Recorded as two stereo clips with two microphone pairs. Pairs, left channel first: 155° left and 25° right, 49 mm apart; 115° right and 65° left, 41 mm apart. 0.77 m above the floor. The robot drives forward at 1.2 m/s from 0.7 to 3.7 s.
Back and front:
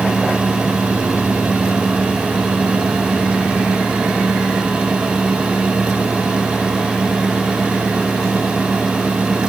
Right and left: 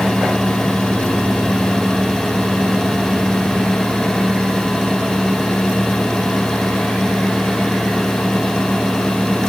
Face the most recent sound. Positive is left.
No sound to turn to.